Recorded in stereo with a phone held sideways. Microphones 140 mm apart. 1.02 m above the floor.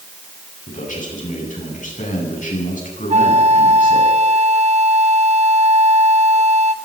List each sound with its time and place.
0.7 s a man speaking: 70° left (ahead or behind), 9.5 m
3.1 s a flute: 50° right (ahead or behind), 1.1 m